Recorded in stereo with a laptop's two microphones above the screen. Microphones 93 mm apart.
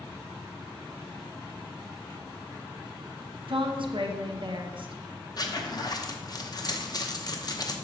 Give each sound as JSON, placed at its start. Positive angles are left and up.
{"t": 3.5, "sound": "a woman speaking", "side_deg": -65, "distance_m": 0.9}
{"t": 5.4, "sound": "a zipper", "side_deg": 45, "distance_m": 0.7}